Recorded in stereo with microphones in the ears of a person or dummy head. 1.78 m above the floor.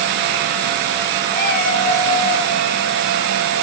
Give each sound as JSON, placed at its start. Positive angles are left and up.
{"t": 1.3, "sound": "a cat meowing", "side_deg": 50, "distance_m": 2.5}